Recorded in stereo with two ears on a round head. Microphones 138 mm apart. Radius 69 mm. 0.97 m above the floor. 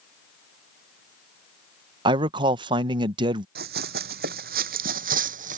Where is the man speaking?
30° right (ahead or behind).